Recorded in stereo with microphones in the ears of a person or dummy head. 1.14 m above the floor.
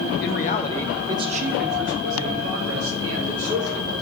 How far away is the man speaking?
About 0.8 m.